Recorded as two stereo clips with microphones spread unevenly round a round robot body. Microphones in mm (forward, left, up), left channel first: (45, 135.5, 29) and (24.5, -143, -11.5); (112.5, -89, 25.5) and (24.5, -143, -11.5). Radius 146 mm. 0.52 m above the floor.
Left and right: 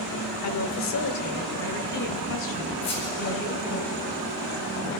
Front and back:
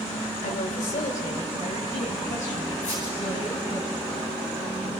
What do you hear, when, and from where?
0.4 s a woman speaking: 60° left, 1.8 m; by 3.8 s 70° left, 4 m
2.8 s a squeak: 55° left, 8 m